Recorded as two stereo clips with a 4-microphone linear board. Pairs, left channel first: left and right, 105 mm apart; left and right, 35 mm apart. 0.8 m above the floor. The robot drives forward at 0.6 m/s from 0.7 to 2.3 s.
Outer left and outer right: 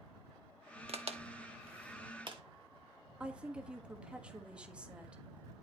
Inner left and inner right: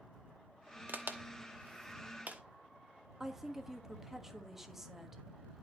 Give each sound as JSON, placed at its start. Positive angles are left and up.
{"t": 0.9, "sound": "a crack", "side_deg": -70, "distance_m": 1.0}
{"t": 3.2, "sound": "a woman speaking", "side_deg": -10, "distance_m": 1.1}